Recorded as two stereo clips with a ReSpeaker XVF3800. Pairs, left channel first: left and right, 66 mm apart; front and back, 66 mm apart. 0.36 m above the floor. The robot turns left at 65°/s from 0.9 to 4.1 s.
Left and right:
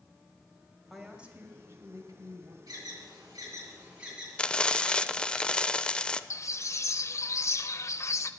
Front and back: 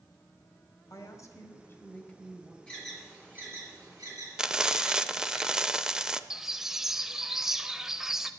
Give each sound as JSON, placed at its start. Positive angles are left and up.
{"t": 0.9, "sound": "a woman speaking", "azimuth_deg": 0, "distance_m": 1.7}
{"t": 2.7, "sound": "an alarm", "azimuth_deg": -75, "distance_m": 6.5}
{"t": 4.4, "sound": "frying", "azimuth_deg": 125, "distance_m": 0.5}
{"t": 6.3, "sound": "a bird", "azimuth_deg": 100, "distance_m": 0.6}